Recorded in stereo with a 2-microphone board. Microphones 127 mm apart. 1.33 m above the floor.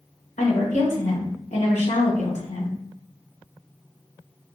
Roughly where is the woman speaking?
Left.